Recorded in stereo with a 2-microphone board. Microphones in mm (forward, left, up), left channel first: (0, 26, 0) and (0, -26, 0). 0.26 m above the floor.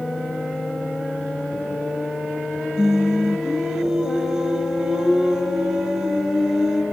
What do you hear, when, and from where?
2.8 s singing: 15° right (ahead or behind), 0.6 m